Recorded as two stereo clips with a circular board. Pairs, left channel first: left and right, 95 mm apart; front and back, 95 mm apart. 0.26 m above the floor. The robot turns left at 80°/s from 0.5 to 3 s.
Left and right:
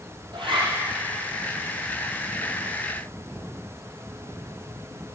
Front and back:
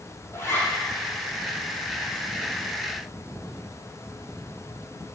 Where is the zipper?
65° right, 4.5 m; by 0.7 s 85° right, 4.5 m.